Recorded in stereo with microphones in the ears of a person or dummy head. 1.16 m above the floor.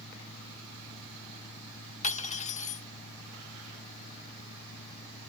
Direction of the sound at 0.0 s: 60° left (ahead or behind).